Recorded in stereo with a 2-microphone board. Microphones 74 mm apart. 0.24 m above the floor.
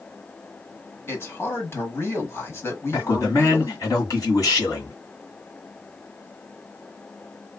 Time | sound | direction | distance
1.1 | a man speaking | 30° left (ahead or behind) | 1.2 m
2.9 | a man speaking | 45° left (ahead or behind) | 1.8 m